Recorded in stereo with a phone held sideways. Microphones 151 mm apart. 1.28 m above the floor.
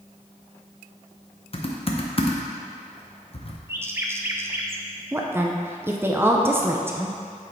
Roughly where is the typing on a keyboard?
Left.